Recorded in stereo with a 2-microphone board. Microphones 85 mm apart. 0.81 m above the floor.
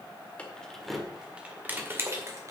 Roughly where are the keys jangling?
Centre.